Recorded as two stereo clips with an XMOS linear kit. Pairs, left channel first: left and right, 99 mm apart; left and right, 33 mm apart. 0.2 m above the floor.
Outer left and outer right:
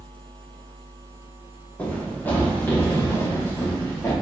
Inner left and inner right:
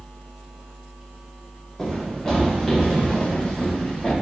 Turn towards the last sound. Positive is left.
turn(degrees=25)  # may be behind; listen again after turning